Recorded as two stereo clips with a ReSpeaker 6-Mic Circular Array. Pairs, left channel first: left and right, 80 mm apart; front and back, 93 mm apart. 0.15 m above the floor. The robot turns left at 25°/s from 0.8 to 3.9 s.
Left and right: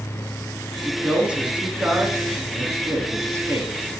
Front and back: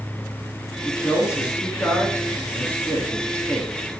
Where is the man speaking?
10° right, 1.8 m; by 3.7 s 80° right, 1.8 m.